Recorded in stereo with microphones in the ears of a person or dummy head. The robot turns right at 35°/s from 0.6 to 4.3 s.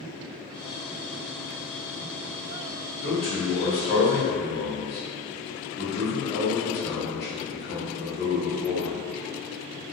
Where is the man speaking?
80° left, 1.2 m; by 9.0 s 120° left, 1.2 m.